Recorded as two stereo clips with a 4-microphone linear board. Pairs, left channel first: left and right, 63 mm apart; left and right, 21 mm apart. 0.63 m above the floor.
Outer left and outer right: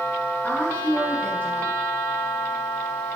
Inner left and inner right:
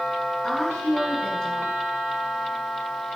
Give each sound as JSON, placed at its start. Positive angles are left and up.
{"t": 0.4, "sound": "a woman speaking", "side_deg": 35, "distance_m": 3.0}